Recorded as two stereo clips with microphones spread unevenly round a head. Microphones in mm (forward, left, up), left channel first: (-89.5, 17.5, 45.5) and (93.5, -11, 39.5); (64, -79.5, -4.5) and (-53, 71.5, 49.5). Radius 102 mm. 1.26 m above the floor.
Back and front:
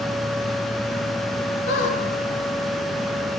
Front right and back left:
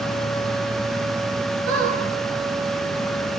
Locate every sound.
1.7 s a squeak: 140° left, 8 m